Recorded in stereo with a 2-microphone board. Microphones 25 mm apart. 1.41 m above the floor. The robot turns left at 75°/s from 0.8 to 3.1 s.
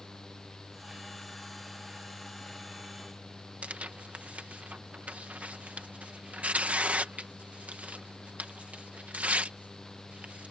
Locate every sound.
3.6 s tearing paper: 70° right (ahead or behind)